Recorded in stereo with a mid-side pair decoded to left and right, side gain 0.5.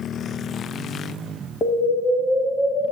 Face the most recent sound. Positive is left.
turn(degrees=35)